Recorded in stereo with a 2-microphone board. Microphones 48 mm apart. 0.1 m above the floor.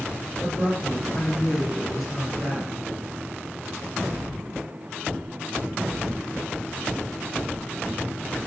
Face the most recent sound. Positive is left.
turn(degrees=-25)  # may be behind; listen again after turning